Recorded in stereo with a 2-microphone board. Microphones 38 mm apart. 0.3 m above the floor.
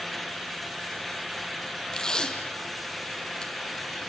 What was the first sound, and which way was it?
Tape being pulled, 20° left (ahead or behind).